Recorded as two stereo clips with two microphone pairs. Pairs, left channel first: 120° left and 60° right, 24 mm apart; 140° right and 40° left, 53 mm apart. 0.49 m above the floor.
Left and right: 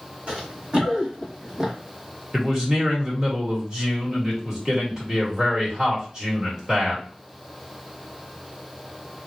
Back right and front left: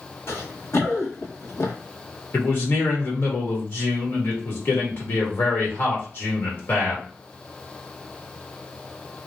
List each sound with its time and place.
0.3 s running footsteps: 100° right, 1.7 m; by 1.7 s 125° right, 1.0 m
2.3 s a man speaking: 120° right, 1.9 m